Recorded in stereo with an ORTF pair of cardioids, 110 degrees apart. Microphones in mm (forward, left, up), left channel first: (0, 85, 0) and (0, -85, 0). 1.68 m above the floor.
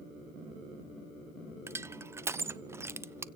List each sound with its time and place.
1.7 s crushing: 15° right, 0.7 m